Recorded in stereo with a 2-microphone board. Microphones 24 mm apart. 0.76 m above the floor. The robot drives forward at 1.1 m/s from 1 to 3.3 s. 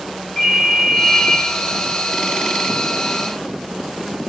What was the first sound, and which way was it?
A ringtone, 20° left (ahead or behind).